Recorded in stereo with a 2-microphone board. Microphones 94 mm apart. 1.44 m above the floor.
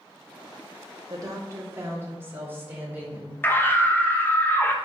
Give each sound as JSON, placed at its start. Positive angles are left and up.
{"t": 1.1, "sound": "a woman speaking", "side_deg": -40, "distance_m": 2.0}
{"t": 3.4, "sound": "a scream", "side_deg": 20, "distance_m": 1.3}